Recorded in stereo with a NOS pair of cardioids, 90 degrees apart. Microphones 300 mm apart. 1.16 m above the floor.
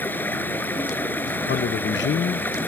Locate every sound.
0.0 s running water: 5° left
1.5 s a man speaking: 40° left